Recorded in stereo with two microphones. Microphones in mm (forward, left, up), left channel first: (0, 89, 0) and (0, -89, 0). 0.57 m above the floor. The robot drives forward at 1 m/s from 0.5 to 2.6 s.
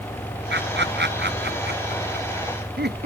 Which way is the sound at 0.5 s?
80° right.